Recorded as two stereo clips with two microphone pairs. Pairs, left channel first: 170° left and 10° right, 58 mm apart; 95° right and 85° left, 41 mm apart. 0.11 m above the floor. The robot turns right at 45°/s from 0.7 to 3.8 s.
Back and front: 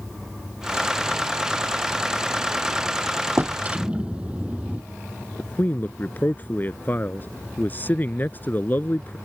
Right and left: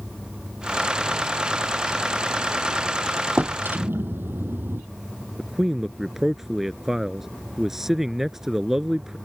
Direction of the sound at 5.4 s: 160° left.